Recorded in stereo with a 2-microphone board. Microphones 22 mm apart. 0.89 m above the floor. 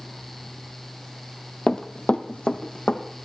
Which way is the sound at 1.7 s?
30° left (ahead or behind).